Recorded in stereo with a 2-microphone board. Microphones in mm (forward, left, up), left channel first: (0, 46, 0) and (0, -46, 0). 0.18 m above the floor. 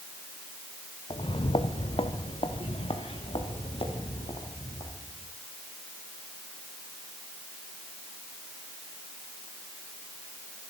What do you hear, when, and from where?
1.1 s footsteps: 65° left (ahead or behind), 0.8 m; by 5.3 s 85° left, 5 m